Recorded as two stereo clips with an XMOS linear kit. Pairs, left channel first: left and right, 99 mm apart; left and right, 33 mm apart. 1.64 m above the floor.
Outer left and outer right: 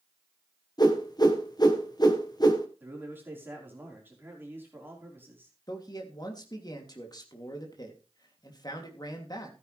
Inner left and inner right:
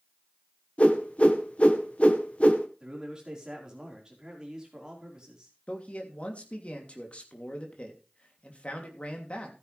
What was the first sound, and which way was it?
A whoosh, 40° left (ahead or behind).